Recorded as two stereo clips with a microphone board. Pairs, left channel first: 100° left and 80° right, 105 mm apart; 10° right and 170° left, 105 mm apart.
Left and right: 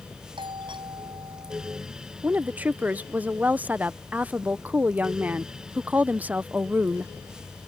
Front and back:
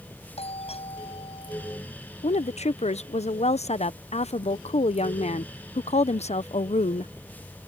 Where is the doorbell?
35° right.